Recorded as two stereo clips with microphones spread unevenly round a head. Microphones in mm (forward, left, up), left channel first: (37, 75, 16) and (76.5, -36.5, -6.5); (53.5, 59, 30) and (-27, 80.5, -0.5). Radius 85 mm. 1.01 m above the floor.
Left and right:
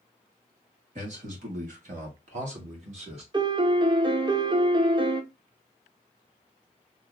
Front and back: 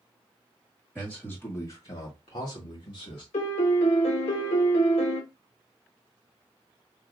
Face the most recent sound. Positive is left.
turn(degrees=-30)